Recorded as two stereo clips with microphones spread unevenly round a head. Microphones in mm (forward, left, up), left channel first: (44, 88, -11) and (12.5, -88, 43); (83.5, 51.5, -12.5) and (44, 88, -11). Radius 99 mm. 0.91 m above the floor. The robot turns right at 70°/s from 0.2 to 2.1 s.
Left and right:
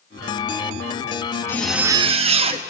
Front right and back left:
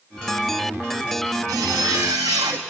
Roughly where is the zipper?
Behind left.